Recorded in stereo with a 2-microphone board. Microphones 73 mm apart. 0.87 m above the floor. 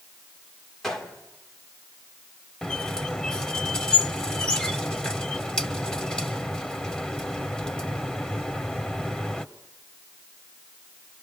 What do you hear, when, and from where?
0.8 s a gunshot: 5° left (ahead or behind), 3 m
2.6 s a squeak: 10° left (ahead or behind), 0.9 m